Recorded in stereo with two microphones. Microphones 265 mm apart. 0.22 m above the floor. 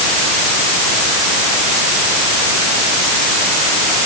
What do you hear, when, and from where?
Only background noise.